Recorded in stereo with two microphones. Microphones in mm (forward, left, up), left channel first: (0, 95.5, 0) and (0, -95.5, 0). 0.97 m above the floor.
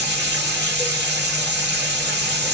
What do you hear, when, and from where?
0.0 s running water: 65° right (ahead or behind), 1.5 m